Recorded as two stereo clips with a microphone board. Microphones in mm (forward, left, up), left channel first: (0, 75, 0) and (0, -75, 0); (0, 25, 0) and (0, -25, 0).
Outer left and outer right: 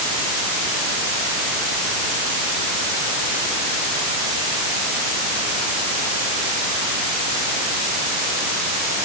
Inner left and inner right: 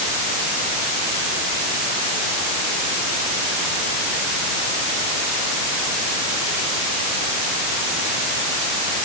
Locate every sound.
Only background noise.